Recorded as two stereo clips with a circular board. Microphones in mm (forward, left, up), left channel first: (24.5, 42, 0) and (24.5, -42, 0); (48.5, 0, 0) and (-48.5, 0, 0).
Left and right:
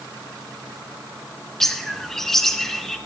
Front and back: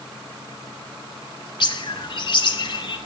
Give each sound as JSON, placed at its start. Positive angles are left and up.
{"t": 1.6, "sound": "a bird", "azimuth_deg": 5, "distance_m": 0.7}